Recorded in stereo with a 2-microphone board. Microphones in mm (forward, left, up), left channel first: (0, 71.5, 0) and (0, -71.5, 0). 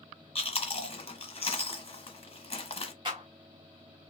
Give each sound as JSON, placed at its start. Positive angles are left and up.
{"t": 0.3, "sound": "chewing", "side_deg": 40, "distance_m": 1.1}
{"t": 3.0, "sound": "a clap", "side_deg": -35, "distance_m": 1.7}